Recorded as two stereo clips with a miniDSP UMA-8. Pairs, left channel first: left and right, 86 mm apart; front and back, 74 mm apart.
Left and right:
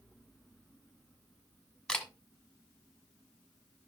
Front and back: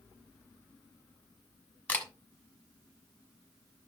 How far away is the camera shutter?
About 1.2 m.